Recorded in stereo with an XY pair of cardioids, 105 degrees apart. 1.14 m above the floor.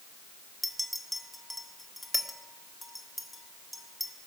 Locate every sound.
0.6 s a clink: 5° left, 1.6 m